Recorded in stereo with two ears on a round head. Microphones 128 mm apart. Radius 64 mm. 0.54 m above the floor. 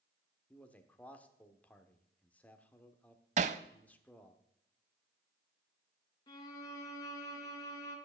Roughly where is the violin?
Left.